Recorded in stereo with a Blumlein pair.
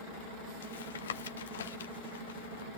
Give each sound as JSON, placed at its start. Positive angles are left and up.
{"t": 0.6, "sound": "tapping", "azimuth_deg": 65, "distance_m": 1.1}